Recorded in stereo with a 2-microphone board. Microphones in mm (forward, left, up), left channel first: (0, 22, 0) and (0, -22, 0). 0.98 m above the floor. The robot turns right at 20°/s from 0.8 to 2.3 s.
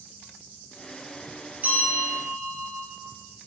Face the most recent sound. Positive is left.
turn(degrees=-45)  # may be behind; listen again after turning